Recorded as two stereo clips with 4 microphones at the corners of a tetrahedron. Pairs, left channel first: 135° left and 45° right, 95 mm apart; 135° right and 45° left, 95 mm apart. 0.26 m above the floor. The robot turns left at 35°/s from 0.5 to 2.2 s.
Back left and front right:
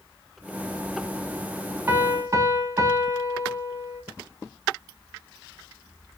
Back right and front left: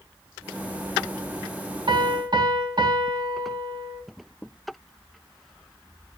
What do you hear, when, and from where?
1.9 s a piano: 20° left, 0.9 m; by 4.0 s 10° left, 0.9 m